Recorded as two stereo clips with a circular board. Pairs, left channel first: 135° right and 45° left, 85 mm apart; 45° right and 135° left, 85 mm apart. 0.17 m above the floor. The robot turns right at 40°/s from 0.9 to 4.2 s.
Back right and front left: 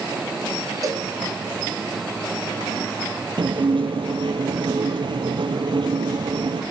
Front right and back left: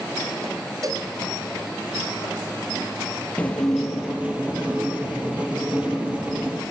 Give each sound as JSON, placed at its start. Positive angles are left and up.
{"t": 0.8, "sound": "a cowbell", "azimuth_deg": 95, "distance_m": 2.5}
{"t": 3.4, "sound": "dishes clattering", "azimuth_deg": 30, "distance_m": 2.5}